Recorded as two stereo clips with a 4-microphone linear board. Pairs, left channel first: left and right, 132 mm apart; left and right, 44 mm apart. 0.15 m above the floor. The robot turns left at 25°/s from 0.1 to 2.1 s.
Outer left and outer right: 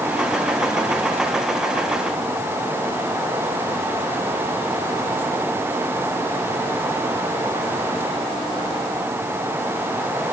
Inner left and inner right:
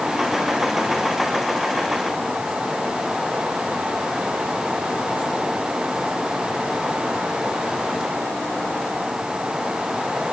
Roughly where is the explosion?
I don't hear an explosion.